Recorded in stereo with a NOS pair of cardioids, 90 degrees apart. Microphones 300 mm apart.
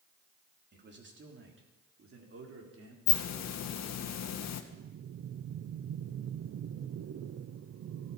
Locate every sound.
0.7 s a man speaking: 35° right, 4 m; by 3.0 s 50° right, 5.5 m
3.1 s a hiss: 65° left, 1.6 m
4.7 s breathing: 55° right, 0.8 m